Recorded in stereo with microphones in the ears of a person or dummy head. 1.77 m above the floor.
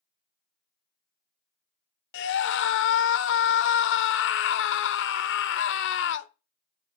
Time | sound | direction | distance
2.1 | a scream | 70° left (ahead or behind) | 0.8 m